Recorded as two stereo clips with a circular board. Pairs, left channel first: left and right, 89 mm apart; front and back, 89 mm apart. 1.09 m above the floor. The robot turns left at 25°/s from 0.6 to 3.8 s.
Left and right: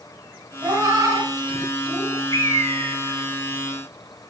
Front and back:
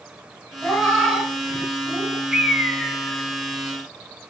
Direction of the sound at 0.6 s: 75° right.